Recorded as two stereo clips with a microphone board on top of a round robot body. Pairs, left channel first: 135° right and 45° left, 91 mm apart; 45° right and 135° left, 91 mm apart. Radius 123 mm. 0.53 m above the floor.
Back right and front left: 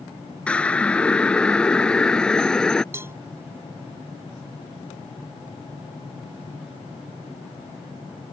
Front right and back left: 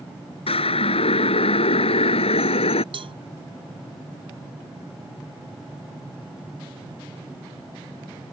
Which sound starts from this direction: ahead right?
A siren, at 0.5 s.